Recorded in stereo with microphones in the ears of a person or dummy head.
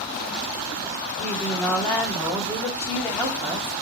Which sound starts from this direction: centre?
A woman speaking, at 1.2 s.